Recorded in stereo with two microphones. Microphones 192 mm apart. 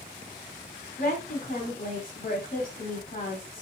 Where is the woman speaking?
45° left (ahead or behind), 2.5 m.